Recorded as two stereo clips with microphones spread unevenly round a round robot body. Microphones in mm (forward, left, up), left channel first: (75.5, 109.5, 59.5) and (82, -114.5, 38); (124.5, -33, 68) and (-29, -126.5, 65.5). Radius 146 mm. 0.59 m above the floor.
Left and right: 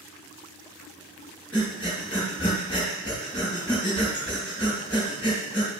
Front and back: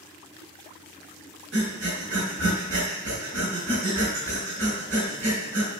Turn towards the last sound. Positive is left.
turn(degrees=-175)